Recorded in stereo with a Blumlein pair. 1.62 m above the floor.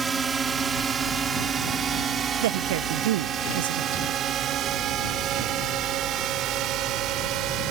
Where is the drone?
15° right; by 7.7 s 35° right.